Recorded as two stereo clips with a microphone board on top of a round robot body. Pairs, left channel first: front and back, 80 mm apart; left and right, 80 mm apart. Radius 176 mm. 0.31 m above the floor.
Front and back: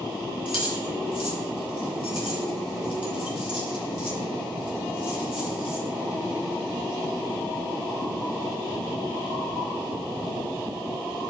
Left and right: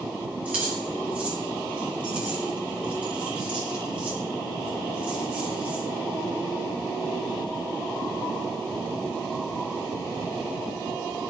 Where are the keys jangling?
15° right, 6.5 m.